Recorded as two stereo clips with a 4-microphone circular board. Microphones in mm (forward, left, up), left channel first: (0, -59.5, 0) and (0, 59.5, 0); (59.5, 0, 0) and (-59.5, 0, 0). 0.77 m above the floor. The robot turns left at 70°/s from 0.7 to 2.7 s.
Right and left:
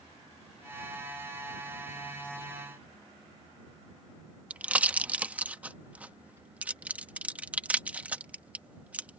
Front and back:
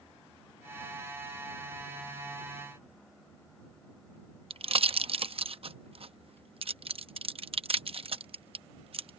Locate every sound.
4.5 s a pop: 165° left